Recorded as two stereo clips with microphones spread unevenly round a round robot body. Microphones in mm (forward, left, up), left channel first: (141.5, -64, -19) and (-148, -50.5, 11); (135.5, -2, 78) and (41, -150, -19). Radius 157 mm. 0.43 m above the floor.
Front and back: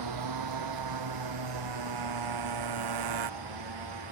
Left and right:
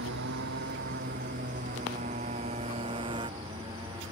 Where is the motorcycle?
165° right; by 4.1 s 160° left.